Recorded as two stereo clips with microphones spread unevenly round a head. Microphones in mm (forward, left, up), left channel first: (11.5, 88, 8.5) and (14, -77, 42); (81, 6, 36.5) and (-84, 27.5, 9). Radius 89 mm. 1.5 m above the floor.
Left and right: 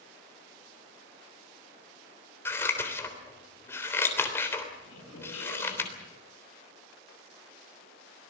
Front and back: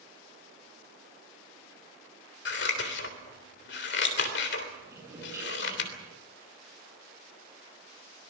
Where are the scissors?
10° left, 3.5 m.